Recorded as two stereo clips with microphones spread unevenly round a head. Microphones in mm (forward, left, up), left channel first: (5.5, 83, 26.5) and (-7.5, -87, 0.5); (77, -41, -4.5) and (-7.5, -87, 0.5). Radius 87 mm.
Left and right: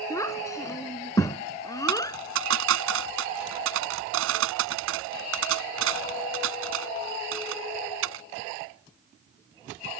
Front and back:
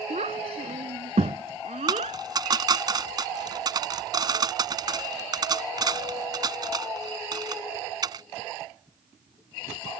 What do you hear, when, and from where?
0.1 s a child speaking: 160° left; by 2.2 s 155° left
1.9 s a dropped coin: 105° right